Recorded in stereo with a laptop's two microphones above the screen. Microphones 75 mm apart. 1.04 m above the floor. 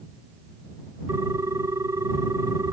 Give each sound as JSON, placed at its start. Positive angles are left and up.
{"t": 1.1, "sound": "a ringtone", "side_deg": -45}